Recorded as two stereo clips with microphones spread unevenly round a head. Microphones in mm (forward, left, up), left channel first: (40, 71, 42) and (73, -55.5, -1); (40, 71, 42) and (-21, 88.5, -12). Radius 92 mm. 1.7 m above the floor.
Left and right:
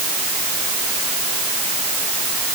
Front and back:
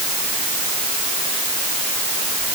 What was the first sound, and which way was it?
Only background noise.